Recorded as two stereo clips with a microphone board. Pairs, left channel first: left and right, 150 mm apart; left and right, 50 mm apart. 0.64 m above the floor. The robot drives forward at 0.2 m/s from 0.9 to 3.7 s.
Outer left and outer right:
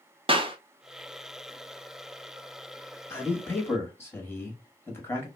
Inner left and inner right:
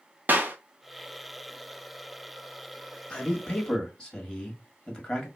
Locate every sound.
0.3 s a clap: 35° right (ahead or behind), 0.7 m
3.1 s a man speaking: 15° left (ahead or behind), 1.2 m